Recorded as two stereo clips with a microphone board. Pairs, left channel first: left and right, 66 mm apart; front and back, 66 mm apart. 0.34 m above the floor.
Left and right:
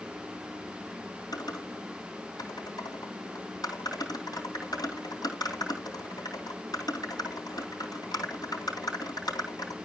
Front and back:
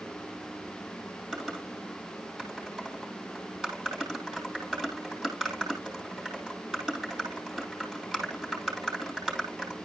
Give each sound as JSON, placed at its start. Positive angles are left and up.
{"t": 1.3, "sound": "typing on a keyboard", "azimuth_deg": 95, "distance_m": 3.0}